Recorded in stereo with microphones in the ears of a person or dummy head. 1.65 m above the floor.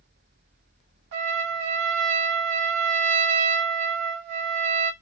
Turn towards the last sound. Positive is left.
turn(degrees=-60)  # may be behind; listen again after turning